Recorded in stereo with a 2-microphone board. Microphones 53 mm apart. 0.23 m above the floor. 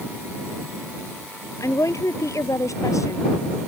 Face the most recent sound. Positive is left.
turn(degrees=75)  # may be behind; listen again after turning